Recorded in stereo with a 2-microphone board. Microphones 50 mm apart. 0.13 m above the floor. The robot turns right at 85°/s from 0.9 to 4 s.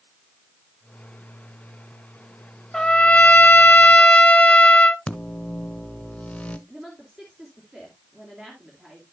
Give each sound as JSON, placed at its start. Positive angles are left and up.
{"t": 2.7, "sound": "a trumpet", "azimuth_deg": 20, "distance_m": 0.5}
{"t": 5.1, "sound": "a microwave", "side_deg": 25, "distance_m": 0.9}
{"t": 6.7, "sound": "a woman speaking", "side_deg": -15, "distance_m": 2.5}